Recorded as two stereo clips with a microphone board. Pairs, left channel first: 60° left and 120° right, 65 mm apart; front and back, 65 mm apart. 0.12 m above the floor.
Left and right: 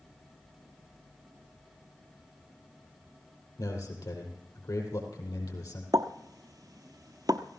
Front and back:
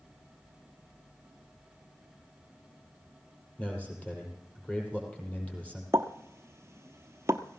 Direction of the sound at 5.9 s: 135° right.